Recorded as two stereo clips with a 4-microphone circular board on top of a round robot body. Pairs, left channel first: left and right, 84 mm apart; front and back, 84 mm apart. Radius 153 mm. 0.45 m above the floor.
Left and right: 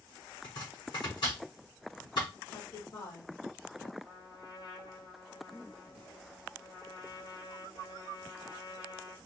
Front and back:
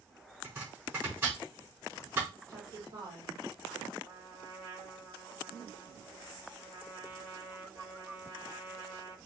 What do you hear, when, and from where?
0.4 s chopping: 120° left, 4.5 m
2.5 s a woman speaking: 135° left, 2.5 m
4.0 s a trumpet: 120° left, 3 m